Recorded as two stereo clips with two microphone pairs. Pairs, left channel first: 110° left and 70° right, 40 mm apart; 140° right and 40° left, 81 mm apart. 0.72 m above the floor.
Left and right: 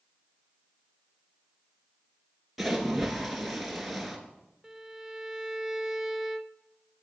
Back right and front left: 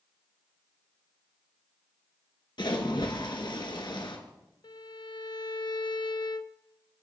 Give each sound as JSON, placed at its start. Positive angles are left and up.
{"t": 2.6, "sound": "a splash", "azimuth_deg": -160, "distance_m": 2.5}
{"t": 4.6, "sound": "a violin", "azimuth_deg": -145, "distance_m": 0.8}